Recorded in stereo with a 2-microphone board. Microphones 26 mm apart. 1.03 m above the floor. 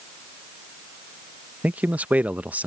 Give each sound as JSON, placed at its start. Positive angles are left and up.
{"t": 1.6, "sound": "a man speaking", "side_deg": -70}